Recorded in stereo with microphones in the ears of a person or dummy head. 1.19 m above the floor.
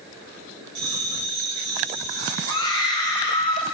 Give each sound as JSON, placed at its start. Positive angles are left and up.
{"t": 0.8, "sound": "a bell", "side_deg": -70, "distance_m": 3.0}
{"t": 2.5, "sound": "a scream", "side_deg": 20, "distance_m": 1.6}